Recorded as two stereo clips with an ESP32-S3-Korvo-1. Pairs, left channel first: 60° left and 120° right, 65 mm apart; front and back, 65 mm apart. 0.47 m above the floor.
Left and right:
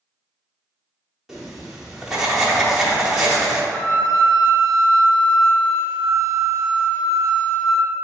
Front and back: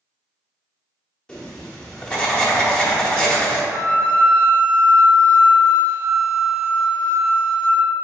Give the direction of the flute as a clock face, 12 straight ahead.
10 o'clock.